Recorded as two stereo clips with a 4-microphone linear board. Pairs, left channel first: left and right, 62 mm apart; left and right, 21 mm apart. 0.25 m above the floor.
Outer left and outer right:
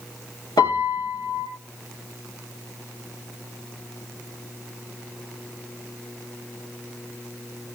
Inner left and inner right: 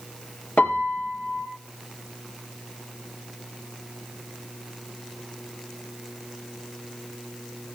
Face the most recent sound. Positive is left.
turn(degrees=80)